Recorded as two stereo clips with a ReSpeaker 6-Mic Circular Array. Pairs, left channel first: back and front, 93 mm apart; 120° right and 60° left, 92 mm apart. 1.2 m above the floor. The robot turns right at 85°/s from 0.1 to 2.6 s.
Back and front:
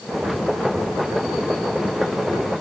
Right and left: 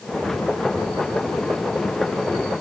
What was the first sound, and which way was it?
Only background noise.